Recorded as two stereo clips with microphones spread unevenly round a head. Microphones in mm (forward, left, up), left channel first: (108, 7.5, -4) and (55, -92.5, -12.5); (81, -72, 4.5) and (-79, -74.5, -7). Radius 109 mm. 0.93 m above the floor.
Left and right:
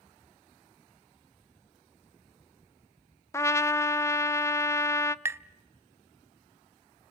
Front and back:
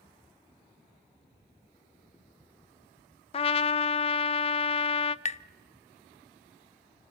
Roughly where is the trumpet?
Ahead.